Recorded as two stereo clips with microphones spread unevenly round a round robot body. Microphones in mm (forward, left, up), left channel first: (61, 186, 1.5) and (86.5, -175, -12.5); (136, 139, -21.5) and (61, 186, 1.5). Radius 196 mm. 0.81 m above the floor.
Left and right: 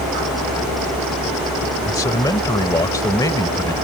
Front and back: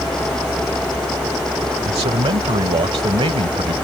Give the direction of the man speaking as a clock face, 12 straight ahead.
6 o'clock.